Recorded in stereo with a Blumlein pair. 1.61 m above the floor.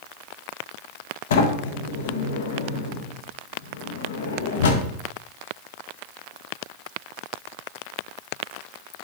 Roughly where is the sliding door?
Ahead left.